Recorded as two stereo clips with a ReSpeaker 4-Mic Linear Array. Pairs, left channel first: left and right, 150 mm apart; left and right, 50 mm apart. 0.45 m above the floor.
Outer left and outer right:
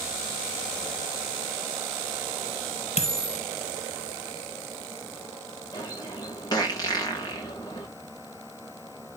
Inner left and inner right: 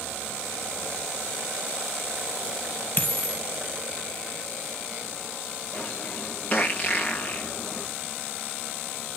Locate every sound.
3.0 s a dropped coin: 40° left (ahead or behind), 4 m
5.7 s a bird: 30° left (ahead or behind), 8.5 m